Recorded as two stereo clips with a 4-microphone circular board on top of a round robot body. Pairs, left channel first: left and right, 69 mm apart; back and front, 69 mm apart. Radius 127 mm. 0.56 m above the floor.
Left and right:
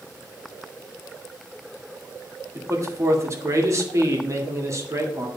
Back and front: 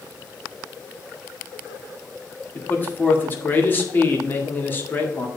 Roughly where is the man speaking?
Behind right.